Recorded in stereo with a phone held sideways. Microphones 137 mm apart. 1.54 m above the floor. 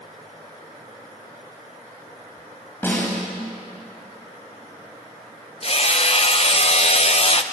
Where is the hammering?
45° left (ahead or behind), 0.9 m.